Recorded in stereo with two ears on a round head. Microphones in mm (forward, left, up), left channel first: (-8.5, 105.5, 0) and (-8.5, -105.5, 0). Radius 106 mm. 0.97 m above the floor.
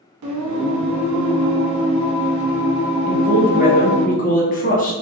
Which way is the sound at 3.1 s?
35° left (ahead or behind).